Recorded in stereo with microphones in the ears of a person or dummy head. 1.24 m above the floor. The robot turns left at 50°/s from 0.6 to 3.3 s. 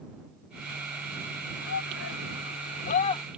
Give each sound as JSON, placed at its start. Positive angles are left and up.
{"t": 1.6, "sound": "a shout", "side_deg": 70}